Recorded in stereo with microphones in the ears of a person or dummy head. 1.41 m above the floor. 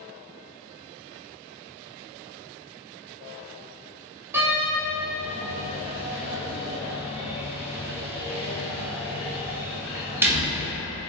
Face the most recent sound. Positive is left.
turn(degrees=-15)  # may be behind; listen again after turning